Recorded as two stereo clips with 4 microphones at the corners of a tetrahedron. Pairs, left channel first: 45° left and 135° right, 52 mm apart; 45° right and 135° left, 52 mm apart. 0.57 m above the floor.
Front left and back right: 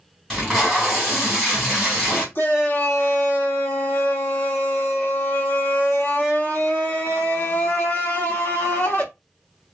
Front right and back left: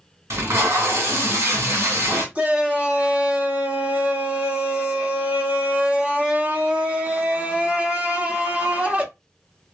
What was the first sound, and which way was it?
Tape being pulled, 125° left.